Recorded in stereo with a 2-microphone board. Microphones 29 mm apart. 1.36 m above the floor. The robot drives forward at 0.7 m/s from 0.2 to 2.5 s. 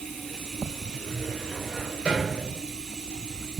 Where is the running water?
10° left (ahead or behind), 5.5 m; by 3.6 s 5° left (ahead or behind), 7 m.